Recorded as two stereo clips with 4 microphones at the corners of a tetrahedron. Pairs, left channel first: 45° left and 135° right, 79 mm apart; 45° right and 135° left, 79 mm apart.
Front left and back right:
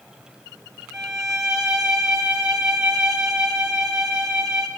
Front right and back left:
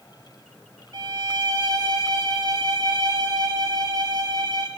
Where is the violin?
145° left, 1.5 m.